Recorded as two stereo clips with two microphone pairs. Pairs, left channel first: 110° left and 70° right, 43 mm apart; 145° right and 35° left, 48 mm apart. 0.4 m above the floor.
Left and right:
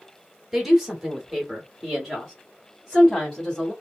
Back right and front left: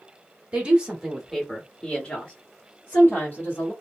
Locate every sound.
0.5 s a woman speaking: 5° left, 1.3 m; by 3.7 s 175° right, 1.8 m